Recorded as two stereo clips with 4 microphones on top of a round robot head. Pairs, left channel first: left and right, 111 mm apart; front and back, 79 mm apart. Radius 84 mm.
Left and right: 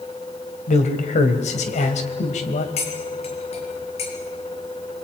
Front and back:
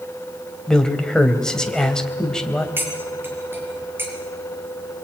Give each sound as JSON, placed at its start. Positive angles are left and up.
{"t": 0.7, "sound": "a man speaking", "azimuth_deg": 80, "distance_m": 3.5}
{"t": 2.8, "sound": "cutlery clinking", "azimuth_deg": 115, "distance_m": 6.0}